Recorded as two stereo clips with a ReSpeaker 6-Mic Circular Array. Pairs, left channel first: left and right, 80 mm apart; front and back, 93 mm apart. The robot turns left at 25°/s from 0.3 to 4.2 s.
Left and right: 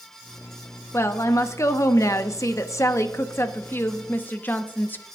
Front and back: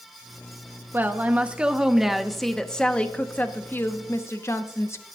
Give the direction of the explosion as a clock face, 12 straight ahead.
I don't hear an explosion.